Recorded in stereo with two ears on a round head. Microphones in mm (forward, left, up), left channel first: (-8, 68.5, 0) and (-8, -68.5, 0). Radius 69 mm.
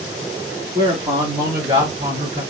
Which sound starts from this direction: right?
A man speaking, at 0.8 s.